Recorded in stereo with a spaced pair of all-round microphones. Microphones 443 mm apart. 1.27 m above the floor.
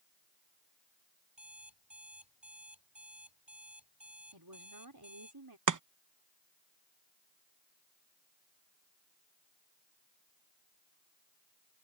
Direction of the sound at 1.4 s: 75° right (ahead or behind).